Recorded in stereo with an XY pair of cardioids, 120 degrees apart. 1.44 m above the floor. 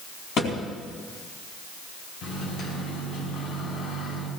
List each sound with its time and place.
0.4 s a thud: 55° left, 4 m
2.2 s a microwave: 70° left, 5.5 m